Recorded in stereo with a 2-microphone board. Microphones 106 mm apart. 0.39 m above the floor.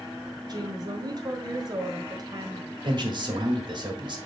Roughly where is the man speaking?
Right.